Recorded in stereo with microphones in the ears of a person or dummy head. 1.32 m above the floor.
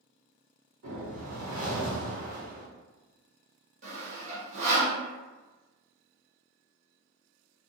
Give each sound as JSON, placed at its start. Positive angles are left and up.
{"t": 0.8, "sound": "a whoosh", "side_deg": -80, "distance_m": 1.2}
{"t": 3.8, "sound": "sawing", "side_deg": -45, "distance_m": 1.1}